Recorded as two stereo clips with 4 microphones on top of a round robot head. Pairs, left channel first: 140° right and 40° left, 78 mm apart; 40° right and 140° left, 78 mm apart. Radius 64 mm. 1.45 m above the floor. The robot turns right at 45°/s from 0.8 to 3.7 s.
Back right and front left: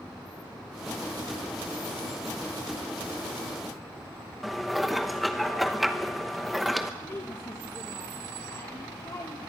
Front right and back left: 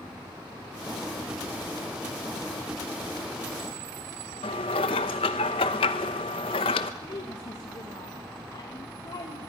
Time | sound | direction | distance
4.4 | dishes clattering | 50° right | 0.9 m
7.0 | a woman speaking | 80° right | 1.6 m